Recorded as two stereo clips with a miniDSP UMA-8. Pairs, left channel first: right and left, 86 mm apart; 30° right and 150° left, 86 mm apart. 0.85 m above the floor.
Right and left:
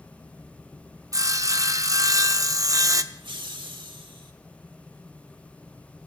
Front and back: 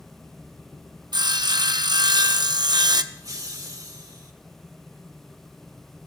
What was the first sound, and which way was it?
Sawing, 130° left.